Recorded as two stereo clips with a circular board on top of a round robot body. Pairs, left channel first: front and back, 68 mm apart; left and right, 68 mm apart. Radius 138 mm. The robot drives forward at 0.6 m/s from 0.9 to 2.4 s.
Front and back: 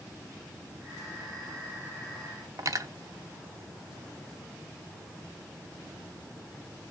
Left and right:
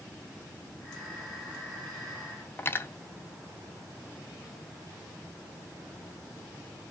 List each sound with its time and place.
2.6 s cutlery clinking: 145° left, 0.8 m